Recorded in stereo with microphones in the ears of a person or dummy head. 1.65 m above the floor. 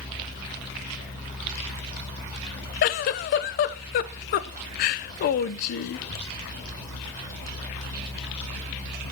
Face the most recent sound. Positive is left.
turn(degrees=50)  # may be behind; listen again after turning